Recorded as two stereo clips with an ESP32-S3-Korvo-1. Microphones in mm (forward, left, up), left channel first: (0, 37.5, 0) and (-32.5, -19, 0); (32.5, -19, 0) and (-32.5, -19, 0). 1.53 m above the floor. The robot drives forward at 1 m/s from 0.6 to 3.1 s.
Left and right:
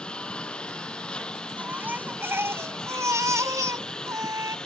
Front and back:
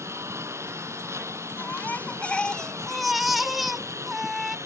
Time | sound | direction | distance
0.0 | a lawn mower | 135° left | ?
1.6 | a baby crying | 55° right | ?